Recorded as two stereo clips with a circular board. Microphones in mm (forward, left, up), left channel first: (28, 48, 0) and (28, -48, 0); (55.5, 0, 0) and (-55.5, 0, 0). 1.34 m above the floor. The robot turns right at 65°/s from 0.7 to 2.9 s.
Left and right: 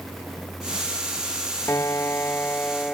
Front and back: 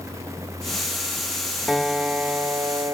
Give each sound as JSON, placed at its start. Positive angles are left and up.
{"t": 1.7, "sound": "a piano", "azimuth_deg": 90, "distance_m": 0.5}